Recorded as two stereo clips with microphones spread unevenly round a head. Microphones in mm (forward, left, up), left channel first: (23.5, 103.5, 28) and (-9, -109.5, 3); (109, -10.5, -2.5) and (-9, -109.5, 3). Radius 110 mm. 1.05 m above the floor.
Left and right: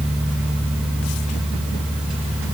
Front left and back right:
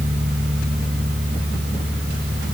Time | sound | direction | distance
0.0 | a fan | 175° left | 6 m